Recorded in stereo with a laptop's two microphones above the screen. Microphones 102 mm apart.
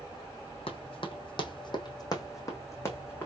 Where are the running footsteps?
60° left (ahead or behind), 1.8 m; by 3.3 s 20° left (ahead or behind), 2.5 m.